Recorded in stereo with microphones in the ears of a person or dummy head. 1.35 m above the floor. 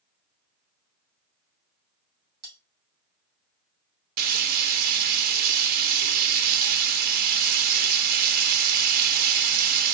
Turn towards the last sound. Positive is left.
turn(degrees=-50)  # may be behind; listen again after turning